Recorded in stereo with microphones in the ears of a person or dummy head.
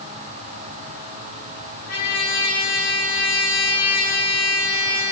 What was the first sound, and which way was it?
A trumpet, 65° left (ahead or behind).